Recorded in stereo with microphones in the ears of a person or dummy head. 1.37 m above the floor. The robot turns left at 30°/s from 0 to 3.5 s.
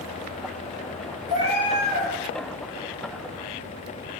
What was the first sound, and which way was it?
A cat meowing, 30° right (ahead or behind).